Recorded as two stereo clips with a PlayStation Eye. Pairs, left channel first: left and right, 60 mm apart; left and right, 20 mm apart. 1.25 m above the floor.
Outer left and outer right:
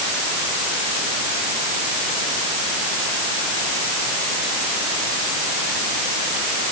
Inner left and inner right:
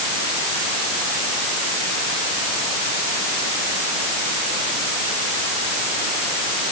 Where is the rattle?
I don't hear a rattle.